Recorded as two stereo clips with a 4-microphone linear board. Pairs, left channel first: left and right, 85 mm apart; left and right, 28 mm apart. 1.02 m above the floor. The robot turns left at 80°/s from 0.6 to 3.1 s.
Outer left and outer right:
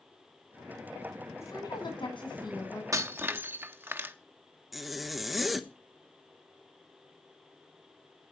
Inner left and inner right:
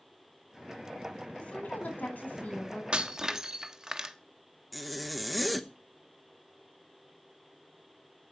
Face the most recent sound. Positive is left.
turn(degrees=0)  # may be behind; listen again after turning